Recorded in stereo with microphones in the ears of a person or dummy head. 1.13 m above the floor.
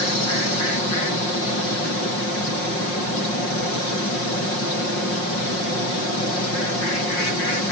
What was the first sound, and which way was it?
Only background noise.